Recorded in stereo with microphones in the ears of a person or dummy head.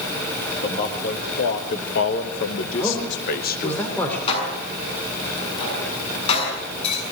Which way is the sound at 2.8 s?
10° left (ahead or behind).